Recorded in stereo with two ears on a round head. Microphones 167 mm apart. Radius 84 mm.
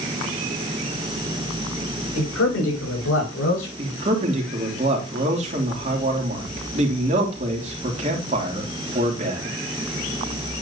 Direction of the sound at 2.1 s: 90° left.